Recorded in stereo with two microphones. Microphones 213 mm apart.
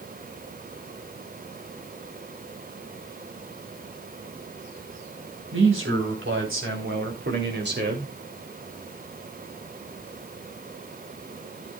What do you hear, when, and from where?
5.5 s a man speaking: 80° right, 4.5 m; by 8.2 s 45° right (ahead or behind), 2.5 m